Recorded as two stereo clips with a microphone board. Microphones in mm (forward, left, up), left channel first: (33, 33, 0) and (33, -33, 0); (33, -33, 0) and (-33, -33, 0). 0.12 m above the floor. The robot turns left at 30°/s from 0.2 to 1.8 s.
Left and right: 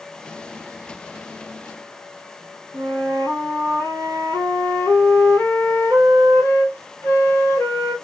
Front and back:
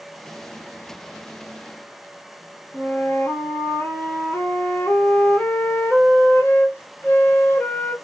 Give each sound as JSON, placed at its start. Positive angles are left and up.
{"t": 2.7, "sound": "a flute", "azimuth_deg": 50, "distance_m": 1.6}